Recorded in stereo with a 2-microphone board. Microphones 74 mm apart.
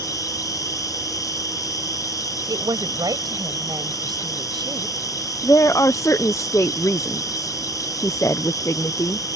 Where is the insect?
50° left (ahead or behind).